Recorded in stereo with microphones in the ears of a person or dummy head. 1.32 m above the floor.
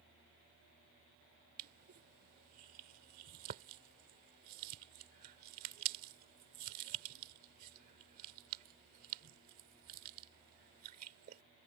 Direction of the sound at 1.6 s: 50° right (ahead or behind).